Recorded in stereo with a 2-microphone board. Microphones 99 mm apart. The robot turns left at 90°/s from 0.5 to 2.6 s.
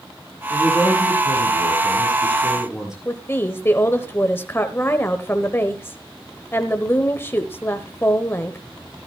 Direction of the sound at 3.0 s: 25° left (ahead or behind).